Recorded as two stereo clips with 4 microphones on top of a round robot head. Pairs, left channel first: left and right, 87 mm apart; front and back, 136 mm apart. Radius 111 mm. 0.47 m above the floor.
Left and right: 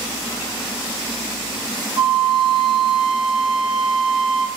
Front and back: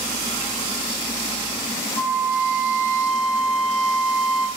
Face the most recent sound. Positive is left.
turn(degrees=-70)